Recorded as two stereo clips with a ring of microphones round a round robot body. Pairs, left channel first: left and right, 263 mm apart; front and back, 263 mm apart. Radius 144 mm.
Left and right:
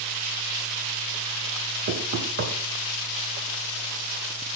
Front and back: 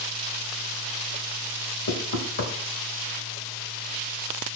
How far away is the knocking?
About 1.6 m.